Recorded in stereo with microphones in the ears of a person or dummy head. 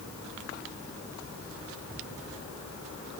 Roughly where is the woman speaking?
I don't hear a woman speaking.